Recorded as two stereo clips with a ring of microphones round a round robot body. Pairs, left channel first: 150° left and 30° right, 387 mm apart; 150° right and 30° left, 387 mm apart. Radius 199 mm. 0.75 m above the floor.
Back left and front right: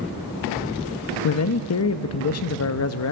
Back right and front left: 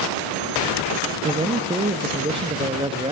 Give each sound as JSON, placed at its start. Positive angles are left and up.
{"t": 1.2, "sound": "a man speaking", "azimuth_deg": 105, "distance_m": 0.6}